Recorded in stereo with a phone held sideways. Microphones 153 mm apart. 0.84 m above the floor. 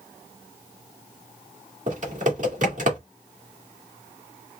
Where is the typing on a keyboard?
55° right (ahead or behind), 2 m.